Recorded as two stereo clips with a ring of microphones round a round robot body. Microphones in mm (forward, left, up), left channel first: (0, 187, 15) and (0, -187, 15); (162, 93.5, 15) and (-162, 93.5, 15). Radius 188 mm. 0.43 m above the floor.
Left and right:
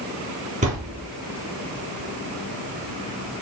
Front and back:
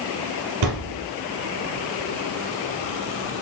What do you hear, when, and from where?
0.6 s a thud: 160° right, 3.5 m